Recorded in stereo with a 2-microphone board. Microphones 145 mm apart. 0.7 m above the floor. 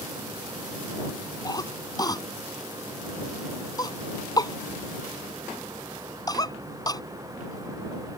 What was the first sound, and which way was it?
A cough, 25° left (ahead or behind).